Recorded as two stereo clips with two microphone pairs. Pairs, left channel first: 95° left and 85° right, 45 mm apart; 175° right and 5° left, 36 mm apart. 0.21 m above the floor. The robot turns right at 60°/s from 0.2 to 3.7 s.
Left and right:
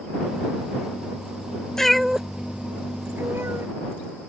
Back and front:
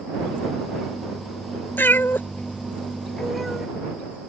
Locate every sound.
1.8 s a cat meowing: 175° left; by 3.7 s 75° right